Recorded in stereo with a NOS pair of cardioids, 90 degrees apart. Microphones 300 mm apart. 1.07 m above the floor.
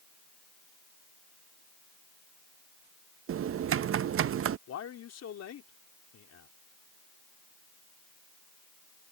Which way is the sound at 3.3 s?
45° right.